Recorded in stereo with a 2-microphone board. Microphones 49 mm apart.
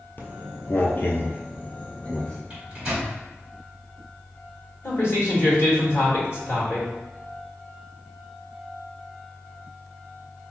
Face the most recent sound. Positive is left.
turn(degrees=50)  # may be behind; listen again after turning